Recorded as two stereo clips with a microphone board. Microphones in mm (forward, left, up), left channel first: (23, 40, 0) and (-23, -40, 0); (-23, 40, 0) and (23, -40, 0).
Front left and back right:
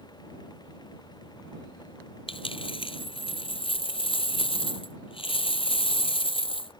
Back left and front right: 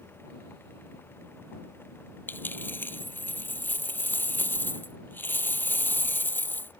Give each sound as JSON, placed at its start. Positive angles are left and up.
{"t": 2.3, "sound": "a dropped coin", "azimuth_deg": 55}